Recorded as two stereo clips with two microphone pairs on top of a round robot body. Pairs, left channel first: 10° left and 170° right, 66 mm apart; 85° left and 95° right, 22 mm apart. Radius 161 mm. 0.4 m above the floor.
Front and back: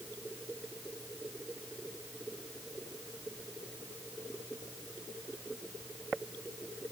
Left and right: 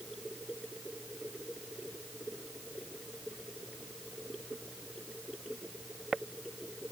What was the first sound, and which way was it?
Only background noise.